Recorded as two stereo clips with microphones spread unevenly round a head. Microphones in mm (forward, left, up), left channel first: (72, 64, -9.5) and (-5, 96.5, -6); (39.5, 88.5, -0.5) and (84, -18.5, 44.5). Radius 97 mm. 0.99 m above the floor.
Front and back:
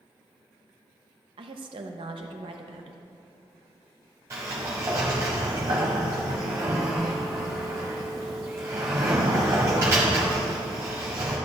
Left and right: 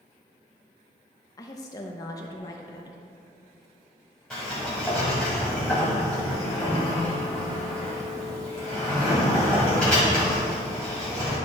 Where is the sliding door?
145° right, 1.3 m.